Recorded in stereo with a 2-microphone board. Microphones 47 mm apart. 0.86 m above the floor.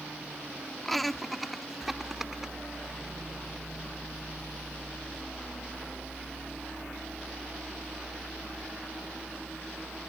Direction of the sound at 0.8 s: 5° left (ahead or behind).